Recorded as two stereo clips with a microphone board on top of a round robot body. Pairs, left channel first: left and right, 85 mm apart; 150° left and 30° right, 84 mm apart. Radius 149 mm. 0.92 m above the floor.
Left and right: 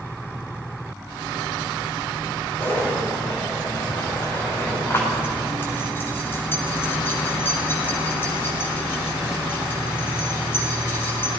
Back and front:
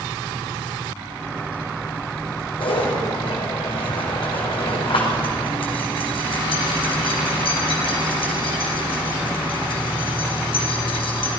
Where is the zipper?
155° left, 5 m.